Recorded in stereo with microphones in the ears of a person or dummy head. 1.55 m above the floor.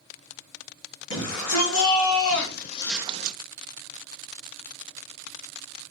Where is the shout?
85° left, 2.5 m; by 3.4 s 50° right (ahead or behind), 0.8 m.